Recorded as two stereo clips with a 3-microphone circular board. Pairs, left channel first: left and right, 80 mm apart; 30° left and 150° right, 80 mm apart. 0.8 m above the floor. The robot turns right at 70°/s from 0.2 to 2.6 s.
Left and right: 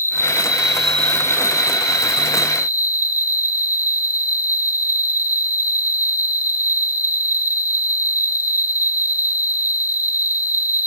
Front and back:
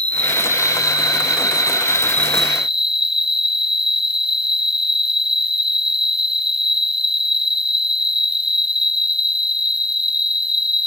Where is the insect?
40° right; by 10.9 s 125° left.